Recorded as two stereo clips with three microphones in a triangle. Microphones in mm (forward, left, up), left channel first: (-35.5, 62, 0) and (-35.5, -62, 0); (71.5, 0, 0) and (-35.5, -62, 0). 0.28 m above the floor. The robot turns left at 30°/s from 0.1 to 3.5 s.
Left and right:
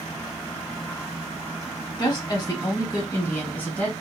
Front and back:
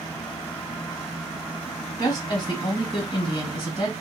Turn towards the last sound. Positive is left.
turn(degrees=20)